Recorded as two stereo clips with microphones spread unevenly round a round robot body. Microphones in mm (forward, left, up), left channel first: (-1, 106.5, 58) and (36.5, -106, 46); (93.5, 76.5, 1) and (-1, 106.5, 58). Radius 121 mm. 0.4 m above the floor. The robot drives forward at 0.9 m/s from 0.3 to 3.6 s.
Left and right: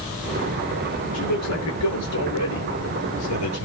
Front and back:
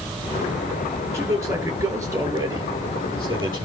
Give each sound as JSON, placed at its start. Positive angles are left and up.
{"t": 1.1, "sound": "a man speaking", "azimuth_deg": 100, "distance_m": 9.0}